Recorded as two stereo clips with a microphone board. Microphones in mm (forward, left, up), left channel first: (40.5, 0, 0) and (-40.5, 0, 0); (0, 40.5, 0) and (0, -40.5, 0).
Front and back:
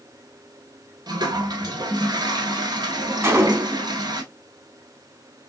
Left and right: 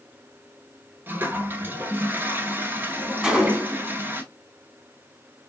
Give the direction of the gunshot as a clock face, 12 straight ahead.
6 o'clock.